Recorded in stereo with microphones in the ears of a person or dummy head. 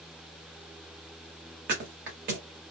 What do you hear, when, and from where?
1.7 s a thud: 40° right (ahead or behind), 1.2 m